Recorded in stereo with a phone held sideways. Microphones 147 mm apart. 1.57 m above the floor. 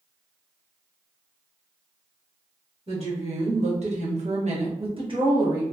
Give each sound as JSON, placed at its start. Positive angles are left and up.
{"t": 2.9, "sound": "a woman speaking", "side_deg": -45, "distance_m": 1.3}